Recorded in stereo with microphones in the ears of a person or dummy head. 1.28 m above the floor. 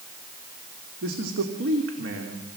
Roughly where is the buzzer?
No buzzer in this recording.